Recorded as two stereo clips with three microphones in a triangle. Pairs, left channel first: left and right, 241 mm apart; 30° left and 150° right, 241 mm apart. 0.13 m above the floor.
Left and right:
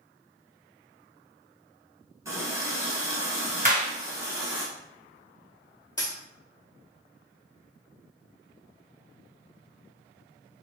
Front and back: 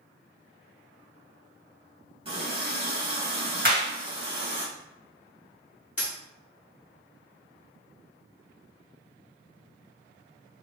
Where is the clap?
130° right, 1.8 m.